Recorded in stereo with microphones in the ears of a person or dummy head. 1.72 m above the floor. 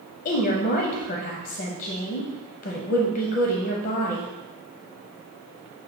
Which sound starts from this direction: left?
A woman speaking, at 0.2 s.